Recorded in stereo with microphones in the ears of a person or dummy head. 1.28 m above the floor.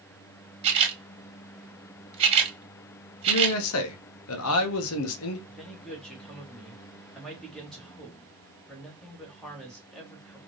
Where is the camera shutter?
30° right (ahead or behind), 1.5 m.